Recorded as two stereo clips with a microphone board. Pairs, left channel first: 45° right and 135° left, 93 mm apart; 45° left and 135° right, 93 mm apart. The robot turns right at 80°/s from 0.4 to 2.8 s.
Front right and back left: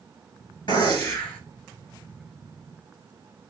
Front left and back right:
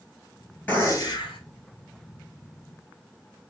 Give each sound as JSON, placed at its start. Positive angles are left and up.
{"t": 0.7, "sound": "a gunshot", "azimuth_deg": -25, "distance_m": 1.9}